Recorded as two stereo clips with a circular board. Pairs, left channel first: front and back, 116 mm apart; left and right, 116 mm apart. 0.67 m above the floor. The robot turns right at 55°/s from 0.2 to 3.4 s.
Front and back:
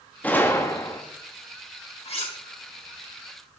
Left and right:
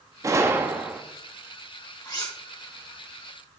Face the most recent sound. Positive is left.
turn(degrees=105)